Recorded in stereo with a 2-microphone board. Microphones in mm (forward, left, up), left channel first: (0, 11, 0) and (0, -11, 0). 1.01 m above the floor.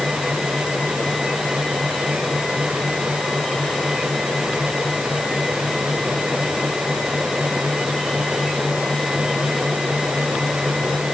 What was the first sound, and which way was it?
Only background noise.